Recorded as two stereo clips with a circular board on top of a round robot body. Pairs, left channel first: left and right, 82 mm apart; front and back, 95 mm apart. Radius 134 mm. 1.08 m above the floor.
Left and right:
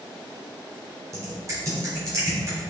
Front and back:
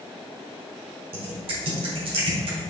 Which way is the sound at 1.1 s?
150° right.